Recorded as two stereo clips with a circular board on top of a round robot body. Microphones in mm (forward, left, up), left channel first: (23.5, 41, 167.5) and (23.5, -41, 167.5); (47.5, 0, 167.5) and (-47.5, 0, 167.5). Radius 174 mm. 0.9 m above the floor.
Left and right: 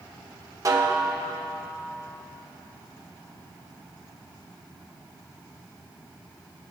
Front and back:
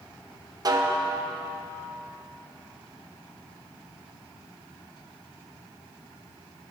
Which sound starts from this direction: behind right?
A snare drum, at 0.7 s.